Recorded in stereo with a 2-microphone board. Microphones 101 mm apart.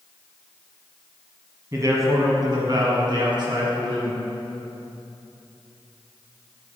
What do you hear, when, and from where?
1.7 s a man speaking: 30° right (ahead or behind), 1.4 m; by 4.2 s 55° right (ahead or behind), 2.5 m